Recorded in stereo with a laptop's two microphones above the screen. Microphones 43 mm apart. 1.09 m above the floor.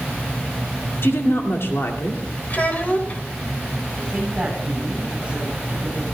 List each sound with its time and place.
1.0 s a woman speaking: 70° left (ahead or behind), 2.5 m
2.5 s a child speaking: 35° left (ahead or behind), 3 m
4.0 s a woman speaking: 25° right (ahead or behind), 8 m